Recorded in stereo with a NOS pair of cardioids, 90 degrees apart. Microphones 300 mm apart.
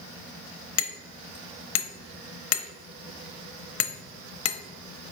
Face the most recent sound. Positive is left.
turn(degrees=55)